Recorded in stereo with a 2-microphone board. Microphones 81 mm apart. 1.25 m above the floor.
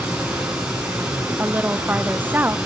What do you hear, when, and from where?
0.0 s running water: 15° right (ahead or behind), 9.5 m
1.4 s a woman speaking: 20° right (ahead or behind), 0.9 m